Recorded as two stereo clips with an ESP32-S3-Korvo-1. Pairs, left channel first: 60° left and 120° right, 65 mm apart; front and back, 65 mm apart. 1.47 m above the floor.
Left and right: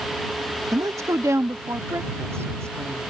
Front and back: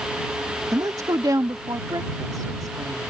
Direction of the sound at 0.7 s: 150° right.